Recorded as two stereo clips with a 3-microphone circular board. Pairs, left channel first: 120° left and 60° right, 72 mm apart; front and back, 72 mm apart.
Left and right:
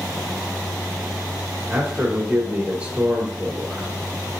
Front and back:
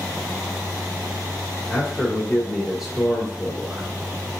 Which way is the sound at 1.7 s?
95° right.